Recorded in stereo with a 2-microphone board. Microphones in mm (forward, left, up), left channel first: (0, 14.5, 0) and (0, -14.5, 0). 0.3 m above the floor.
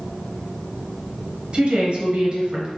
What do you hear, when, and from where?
1.5 s a woman speaking: 40° right (ahead or behind), 1.1 m